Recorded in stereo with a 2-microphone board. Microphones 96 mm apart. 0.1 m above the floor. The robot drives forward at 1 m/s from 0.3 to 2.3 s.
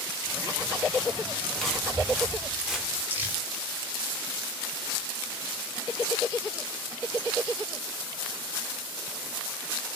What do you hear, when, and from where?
1.6 s footsteps: 5° left (ahead or behind), 7 m; by 3.0 s 5° right (ahead or behind), 6.5 m
3.1 s crumpling: 20° right (ahead or behind), 5.5 m